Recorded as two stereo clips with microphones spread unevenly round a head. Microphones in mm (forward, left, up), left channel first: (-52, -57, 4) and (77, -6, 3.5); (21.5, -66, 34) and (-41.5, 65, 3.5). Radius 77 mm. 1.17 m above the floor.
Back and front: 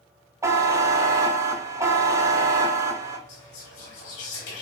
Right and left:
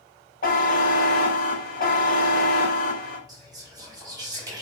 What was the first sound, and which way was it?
A buzzer, 45° right.